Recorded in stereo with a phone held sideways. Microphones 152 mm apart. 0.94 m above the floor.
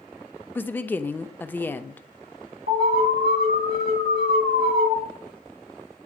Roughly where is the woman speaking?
Centre.